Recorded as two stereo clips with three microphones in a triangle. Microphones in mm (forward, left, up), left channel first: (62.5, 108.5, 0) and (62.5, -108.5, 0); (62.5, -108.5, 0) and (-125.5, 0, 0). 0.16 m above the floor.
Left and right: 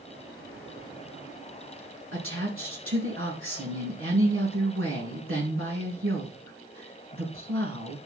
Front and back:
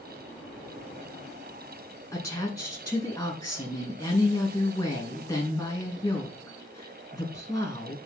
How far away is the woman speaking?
About 5.5 m.